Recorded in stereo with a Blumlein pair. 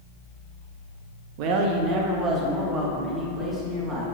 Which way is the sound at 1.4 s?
45° right.